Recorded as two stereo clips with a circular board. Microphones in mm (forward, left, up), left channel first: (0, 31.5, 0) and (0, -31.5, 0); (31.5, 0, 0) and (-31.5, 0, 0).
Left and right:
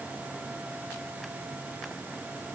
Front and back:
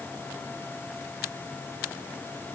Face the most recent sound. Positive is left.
No sound to turn to.